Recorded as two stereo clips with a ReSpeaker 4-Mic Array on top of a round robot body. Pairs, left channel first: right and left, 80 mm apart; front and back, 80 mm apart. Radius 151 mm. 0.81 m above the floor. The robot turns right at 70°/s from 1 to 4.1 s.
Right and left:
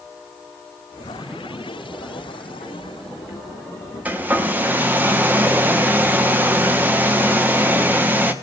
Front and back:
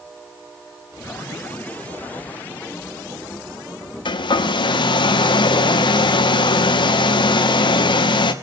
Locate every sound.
4.0 s a hair dryer: 15° left, 1.1 m; by 8.3 s 20° left, 1.1 m